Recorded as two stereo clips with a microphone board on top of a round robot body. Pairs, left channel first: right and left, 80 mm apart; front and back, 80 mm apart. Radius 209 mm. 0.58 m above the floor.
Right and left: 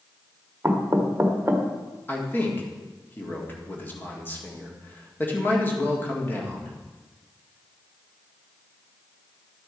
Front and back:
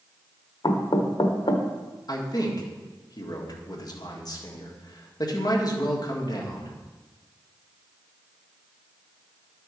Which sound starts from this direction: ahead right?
A man speaking, at 2.1 s.